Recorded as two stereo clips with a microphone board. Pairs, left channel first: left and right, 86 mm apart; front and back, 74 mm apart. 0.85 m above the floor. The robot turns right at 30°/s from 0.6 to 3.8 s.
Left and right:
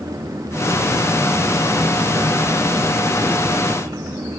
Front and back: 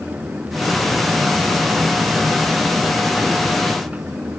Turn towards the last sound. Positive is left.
No sound to turn to.